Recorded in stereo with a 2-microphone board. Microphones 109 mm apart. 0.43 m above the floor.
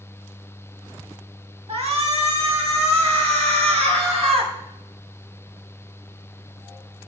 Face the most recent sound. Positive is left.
turn(degrees=-65)  # may be behind; listen again after turning